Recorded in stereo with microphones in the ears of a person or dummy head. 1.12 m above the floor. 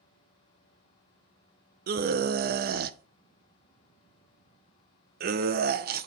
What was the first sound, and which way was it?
A scream, 45° right (ahead or behind).